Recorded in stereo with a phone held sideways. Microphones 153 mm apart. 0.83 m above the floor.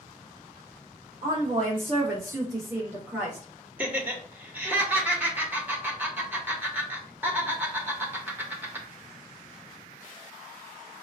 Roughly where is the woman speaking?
Right.